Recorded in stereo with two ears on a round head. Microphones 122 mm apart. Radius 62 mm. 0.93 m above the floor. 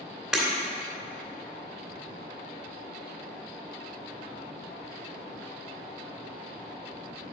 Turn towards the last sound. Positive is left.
turn(degrees=-5)  # may be behind; listen again after turning